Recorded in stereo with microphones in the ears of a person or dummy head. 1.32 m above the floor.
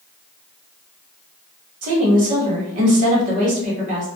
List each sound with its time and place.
1.8 s a woman speaking: 50° right (ahead or behind), 1.4 m